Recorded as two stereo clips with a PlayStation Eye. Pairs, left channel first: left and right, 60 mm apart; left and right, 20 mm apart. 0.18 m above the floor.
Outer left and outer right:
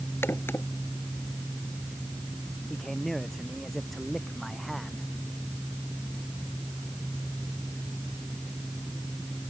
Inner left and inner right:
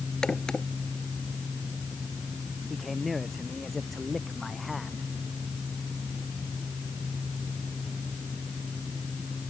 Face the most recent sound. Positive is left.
turn(degrees=5)  # may be behind; listen again after turning